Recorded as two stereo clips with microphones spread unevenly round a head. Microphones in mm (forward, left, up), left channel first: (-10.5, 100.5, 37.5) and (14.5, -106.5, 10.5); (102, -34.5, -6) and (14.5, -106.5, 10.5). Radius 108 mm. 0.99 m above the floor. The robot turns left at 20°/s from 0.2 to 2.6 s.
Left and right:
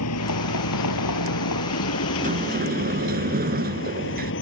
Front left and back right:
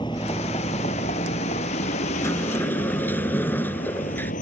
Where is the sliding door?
25° right; by 4.3 s 35° right.